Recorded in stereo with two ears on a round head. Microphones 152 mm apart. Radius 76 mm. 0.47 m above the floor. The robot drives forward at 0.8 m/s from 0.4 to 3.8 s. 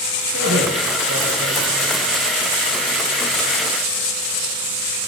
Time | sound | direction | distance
0.3 | a man speaking | 85° right | 10 m